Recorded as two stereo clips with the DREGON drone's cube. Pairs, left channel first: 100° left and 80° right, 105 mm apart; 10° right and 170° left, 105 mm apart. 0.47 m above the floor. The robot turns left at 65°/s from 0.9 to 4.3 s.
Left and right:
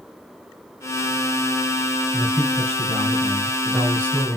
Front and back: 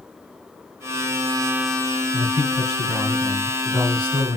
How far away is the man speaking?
About 2.5 m.